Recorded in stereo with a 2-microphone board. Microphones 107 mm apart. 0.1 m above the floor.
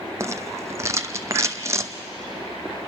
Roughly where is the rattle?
Right.